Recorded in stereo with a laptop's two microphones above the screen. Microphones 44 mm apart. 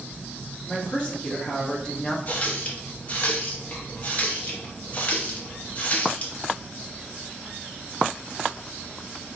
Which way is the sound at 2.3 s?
35° left (ahead or behind).